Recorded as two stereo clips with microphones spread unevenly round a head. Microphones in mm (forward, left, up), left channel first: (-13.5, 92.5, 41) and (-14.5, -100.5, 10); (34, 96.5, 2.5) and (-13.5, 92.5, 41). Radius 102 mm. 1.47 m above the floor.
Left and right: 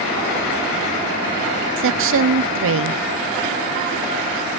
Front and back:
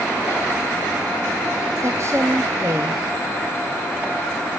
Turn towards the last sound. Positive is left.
turn(degrees=-100)